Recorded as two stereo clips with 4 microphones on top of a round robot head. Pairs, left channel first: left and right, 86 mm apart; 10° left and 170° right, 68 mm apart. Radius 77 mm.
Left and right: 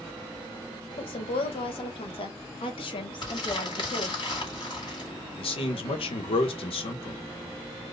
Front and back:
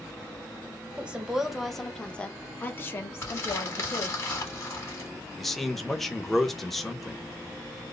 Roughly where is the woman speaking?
Behind left.